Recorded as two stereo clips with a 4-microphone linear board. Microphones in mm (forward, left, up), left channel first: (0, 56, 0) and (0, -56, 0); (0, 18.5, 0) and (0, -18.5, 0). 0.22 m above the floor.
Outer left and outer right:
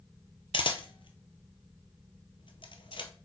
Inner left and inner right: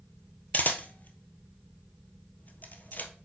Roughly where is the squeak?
I don't hear a squeak.